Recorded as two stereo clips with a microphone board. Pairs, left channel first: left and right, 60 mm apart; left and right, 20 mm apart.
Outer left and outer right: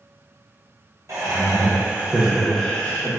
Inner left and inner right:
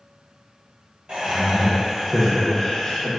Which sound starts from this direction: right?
Laughter, at 1.1 s.